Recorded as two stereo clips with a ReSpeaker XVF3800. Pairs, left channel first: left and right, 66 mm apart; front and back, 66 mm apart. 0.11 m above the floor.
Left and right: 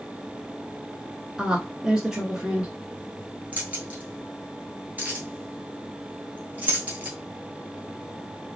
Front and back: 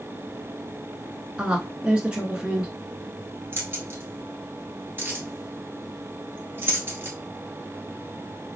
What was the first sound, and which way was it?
A woman speaking, 145° right.